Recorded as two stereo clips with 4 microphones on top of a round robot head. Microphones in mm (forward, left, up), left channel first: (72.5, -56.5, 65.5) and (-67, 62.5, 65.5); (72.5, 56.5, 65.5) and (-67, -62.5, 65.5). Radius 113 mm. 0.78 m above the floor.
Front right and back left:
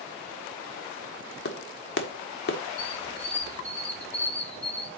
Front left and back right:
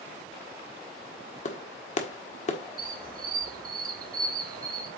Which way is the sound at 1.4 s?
10° right.